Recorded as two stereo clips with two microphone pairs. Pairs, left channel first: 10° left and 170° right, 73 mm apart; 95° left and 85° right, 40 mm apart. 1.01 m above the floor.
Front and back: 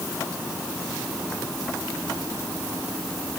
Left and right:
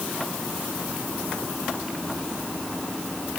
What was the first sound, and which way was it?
Only background noise.